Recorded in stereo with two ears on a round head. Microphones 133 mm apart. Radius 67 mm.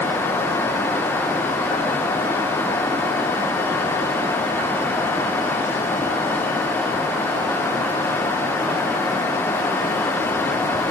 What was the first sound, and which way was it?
Only background noise.